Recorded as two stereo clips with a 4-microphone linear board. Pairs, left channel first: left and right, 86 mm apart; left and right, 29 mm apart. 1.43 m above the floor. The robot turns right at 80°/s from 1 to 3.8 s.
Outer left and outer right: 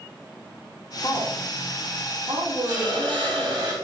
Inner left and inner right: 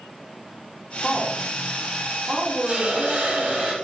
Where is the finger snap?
I don't hear a finger snap.